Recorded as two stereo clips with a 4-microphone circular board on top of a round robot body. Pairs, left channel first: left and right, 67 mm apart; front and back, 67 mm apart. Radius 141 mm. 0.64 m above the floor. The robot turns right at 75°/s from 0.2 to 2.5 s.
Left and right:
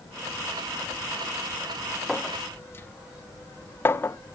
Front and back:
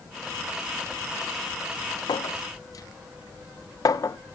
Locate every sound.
2.1 s a clink: straight ahead, 0.7 m; by 4.2 s 35° left, 0.7 m